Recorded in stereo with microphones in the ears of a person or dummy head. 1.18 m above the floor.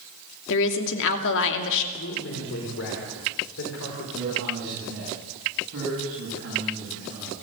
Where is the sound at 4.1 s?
60° right (ahead or behind), 8 m.